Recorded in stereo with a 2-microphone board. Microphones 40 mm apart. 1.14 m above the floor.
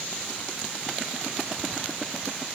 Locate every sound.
Only background noise.